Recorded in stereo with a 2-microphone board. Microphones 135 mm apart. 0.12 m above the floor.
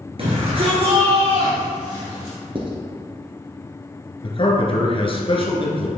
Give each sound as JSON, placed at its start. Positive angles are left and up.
{"t": 0.2, "sound": "a shout", "side_deg": -45, "distance_m": 2.0}
{"t": 2.5, "sound": "writing", "side_deg": -40, "distance_m": 1.5}
{"t": 4.2, "sound": "a man speaking", "side_deg": 40, "distance_m": 1.6}